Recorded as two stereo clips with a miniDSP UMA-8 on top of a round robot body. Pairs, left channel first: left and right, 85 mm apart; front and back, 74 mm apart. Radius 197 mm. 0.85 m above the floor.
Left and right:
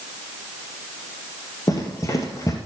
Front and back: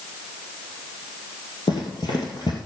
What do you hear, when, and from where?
1.7 s running footsteps: 35° left, 1.7 m